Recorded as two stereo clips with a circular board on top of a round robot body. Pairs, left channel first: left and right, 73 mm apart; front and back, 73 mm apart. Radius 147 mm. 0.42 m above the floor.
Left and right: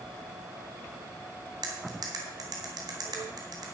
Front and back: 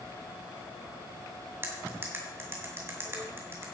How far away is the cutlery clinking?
About 2.5 m.